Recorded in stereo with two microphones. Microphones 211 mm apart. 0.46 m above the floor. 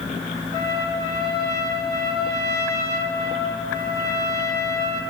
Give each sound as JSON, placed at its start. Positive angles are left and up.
{"t": 0.5, "sound": "a trumpet", "side_deg": 55, "distance_m": 7.0}